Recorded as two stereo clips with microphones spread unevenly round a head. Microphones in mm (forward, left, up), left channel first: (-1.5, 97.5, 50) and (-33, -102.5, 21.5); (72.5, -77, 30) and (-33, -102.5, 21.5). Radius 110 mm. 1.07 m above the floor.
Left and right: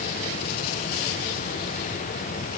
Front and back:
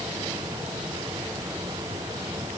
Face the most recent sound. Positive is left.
No sound to turn to.